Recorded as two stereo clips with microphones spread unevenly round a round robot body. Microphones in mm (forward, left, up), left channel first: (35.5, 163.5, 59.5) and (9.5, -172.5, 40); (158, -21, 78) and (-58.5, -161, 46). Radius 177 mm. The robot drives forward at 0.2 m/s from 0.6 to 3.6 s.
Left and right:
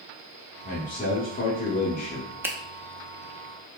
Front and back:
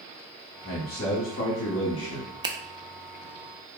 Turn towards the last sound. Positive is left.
turn(degrees=-170)